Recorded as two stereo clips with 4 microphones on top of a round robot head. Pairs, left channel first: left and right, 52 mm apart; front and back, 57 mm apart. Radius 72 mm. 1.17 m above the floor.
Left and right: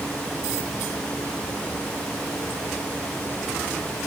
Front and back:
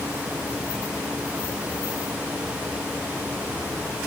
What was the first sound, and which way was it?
Only background noise.